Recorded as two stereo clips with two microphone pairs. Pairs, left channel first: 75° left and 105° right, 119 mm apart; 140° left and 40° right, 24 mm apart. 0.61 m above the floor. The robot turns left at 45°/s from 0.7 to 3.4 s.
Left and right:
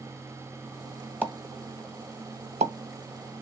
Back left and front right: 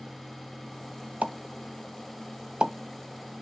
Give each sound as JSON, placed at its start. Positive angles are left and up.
{"t": 1.2, "sound": "a pop", "azimuth_deg": -30, "distance_m": 0.9}